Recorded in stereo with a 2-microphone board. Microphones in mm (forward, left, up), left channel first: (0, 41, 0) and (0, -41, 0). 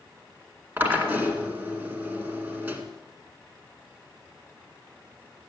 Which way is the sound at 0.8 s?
20° right (ahead or behind).